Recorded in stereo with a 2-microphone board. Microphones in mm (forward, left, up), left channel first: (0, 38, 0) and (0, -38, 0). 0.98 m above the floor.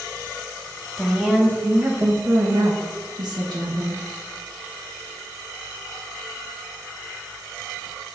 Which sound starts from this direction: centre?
A woman speaking, at 1.0 s.